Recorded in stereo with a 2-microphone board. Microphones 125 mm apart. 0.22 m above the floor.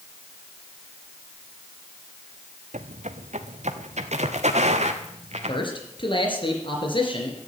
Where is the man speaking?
40° left (ahead or behind), 4 m.